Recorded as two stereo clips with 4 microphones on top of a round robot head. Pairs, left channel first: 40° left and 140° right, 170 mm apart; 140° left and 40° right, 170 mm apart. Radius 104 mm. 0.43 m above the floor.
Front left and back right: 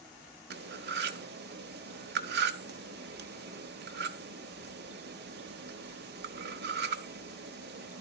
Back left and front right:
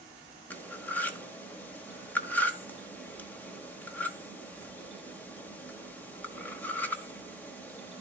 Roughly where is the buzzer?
No buzzer in this recording.